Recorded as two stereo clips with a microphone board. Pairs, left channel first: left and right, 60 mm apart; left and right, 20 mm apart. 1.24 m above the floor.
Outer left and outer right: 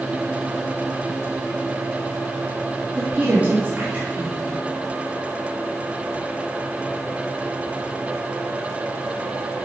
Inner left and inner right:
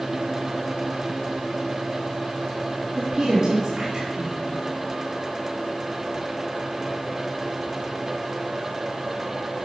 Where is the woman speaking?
30° right (ahead or behind), 2.5 m.